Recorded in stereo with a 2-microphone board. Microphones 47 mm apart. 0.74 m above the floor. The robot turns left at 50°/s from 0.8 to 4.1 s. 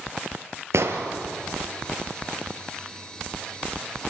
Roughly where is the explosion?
Right.